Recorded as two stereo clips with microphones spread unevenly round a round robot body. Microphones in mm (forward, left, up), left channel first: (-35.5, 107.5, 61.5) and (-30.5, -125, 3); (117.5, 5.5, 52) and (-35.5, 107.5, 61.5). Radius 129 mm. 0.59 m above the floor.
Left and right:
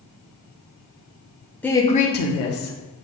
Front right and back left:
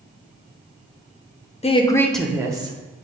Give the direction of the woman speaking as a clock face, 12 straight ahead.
12 o'clock.